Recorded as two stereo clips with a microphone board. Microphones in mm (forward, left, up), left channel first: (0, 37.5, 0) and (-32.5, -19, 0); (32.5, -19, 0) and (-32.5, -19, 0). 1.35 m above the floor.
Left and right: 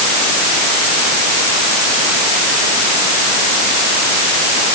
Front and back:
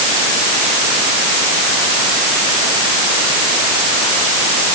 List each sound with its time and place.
Only background noise.